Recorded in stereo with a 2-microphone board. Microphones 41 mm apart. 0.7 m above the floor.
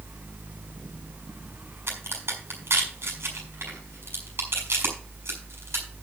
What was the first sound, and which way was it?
A crack, 75° right (ahead or behind).